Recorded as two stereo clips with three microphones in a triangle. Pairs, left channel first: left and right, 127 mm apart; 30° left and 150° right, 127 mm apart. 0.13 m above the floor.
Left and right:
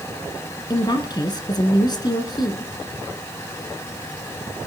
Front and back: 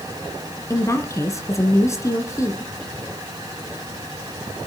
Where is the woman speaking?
75° left, 1.7 m.